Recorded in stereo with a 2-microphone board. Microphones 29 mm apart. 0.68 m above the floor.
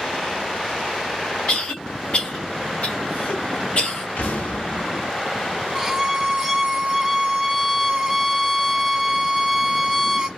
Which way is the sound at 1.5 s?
55° left (ahead or behind).